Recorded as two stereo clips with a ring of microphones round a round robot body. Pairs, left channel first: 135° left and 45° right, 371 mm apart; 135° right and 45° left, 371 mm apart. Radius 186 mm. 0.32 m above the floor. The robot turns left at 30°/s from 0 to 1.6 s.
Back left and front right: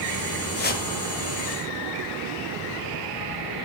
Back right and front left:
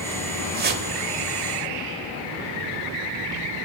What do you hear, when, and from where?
0.6 s a whoosh: 95° left, 1.1 m; by 0.9 s 85° left, 1.1 m